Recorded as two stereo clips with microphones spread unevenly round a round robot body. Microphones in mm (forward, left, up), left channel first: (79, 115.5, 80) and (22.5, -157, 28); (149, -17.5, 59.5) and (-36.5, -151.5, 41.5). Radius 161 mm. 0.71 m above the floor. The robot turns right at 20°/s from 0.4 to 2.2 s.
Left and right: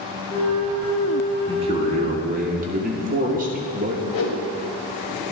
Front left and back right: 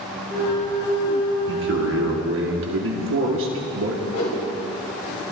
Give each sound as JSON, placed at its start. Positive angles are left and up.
{"t": 1.5, "sound": "a man speaking", "azimuth_deg": -170, "distance_m": 1.7}
{"t": 4.1, "sound": "a whoosh", "azimuth_deg": 75, "distance_m": 2.5}